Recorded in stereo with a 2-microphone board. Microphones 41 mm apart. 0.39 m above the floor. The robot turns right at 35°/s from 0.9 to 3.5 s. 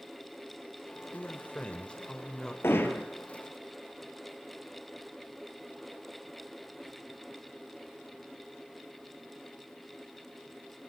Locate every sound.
1.1 s a man speaking: 110° left, 1.3 m; by 2.5 s 160° left, 1.3 m
2.6 s hammering: 80° left, 1.9 m; by 3.1 s 60° left (ahead or behind), 1.9 m